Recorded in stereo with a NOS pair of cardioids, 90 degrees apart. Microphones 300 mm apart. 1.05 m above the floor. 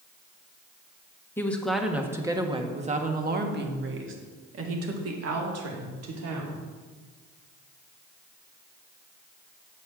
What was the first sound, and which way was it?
A woman speaking, 5° left.